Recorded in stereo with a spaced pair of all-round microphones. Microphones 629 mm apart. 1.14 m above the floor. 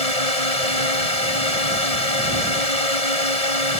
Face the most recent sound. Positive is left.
turn(degrees=70)  # may be behind; listen again after turning